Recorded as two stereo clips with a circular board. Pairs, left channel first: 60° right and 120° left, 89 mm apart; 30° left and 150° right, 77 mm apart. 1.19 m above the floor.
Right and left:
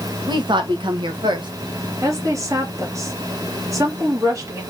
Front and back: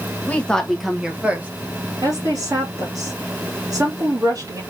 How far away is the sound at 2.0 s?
About 2.5 m.